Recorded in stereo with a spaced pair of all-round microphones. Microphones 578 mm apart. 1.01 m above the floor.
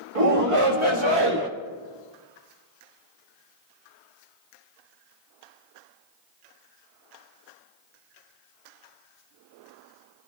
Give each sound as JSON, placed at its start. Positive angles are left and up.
{"t": 0.1, "sound": "a shout", "side_deg": -70, "distance_m": 1.8}